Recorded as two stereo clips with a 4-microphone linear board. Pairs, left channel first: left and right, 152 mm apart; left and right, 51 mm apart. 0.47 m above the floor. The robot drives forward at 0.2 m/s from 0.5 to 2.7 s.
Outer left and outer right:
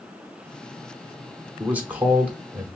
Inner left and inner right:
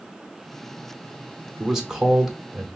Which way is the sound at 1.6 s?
10° right (ahead or behind).